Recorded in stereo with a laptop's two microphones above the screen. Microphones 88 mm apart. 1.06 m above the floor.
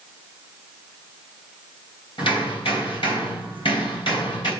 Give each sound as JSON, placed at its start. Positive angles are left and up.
{"t": 2.2, "sound": "hammering", "side_deg": 75, "distance_m": 3.5}